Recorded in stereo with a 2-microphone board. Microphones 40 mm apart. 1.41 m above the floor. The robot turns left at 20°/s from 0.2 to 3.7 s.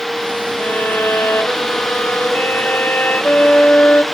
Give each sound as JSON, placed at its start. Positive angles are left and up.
{"t": 0.6, "sound": "a violin", "azimuth_deg": 110, "distance_m": 3.0}